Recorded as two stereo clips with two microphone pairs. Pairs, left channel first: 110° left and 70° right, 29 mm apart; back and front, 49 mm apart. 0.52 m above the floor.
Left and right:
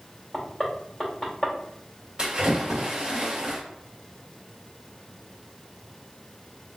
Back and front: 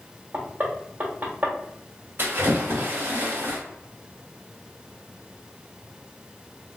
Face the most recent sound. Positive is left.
turn(degrees=-15)